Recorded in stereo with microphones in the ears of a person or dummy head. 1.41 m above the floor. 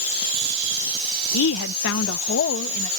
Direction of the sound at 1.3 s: 75° left (ahead or behind).